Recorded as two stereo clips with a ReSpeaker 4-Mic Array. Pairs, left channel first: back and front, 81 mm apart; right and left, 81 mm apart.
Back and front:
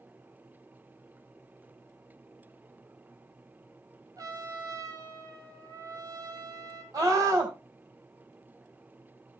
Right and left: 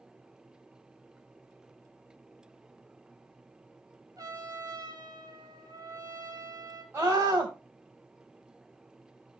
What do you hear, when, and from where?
4.2 s a trumpet: 40° left, 2.5 m
6.9 s a scream: 30° left, 3 m